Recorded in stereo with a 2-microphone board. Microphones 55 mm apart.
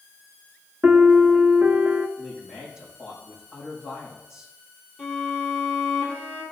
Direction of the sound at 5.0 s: 10° left (ahead or behind).